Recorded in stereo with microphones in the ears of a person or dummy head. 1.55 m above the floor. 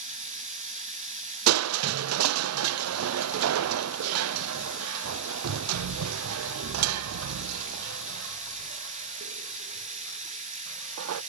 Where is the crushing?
85° right, 0.5 m.